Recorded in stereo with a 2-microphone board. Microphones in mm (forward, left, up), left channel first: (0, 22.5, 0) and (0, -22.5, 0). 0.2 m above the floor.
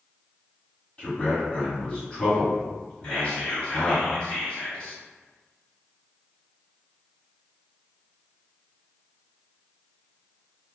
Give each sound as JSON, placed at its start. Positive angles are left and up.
{"t": 1.0, "sound": "a man speaking", "side_deg": 25, "distance_m": 1.5}
{"t": 3.0, "sound": "whispering", "side_deg": 25, "distance_m": 1.2}